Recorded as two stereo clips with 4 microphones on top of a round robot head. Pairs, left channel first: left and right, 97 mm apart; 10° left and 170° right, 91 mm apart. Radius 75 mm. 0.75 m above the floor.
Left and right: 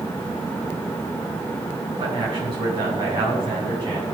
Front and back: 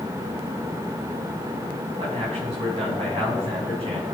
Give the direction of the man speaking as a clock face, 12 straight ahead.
5 o'clock.